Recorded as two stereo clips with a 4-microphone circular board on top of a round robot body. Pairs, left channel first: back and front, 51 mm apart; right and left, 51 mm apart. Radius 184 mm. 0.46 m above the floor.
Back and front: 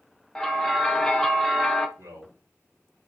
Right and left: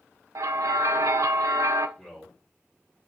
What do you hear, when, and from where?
0.3 s a bell: 95° left, 0.5 m
2.0 s a man speaking: 15° right, 3 m